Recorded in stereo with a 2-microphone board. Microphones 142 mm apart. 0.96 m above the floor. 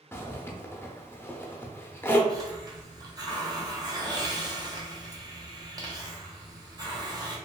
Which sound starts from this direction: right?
A hiss, at 2.3 s.